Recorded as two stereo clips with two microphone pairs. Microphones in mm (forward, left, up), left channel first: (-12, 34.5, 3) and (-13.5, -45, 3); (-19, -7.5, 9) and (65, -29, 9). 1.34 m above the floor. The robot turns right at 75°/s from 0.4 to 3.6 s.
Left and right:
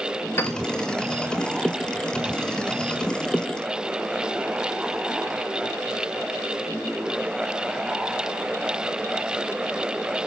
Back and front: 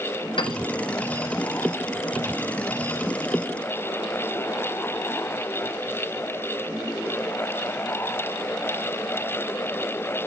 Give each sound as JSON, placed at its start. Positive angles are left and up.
{"t": 0.4, "sound": "a piano", "azimuth_deg": 145, "distance_m": 1.5}